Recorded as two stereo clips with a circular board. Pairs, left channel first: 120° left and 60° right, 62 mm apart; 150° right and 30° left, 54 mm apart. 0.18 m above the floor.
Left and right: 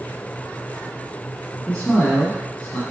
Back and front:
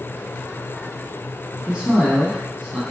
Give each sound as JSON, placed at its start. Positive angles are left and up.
{"t": 1.7, "sound": "a man speaking", "azimuth_deg": 70, "distance_m": 1.1}